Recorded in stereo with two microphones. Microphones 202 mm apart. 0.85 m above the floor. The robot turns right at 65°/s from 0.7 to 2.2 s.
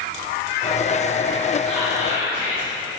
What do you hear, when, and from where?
1.7 s whispering: 175° left, 2.5 m; by 2.7 s 150° right, 2.5 m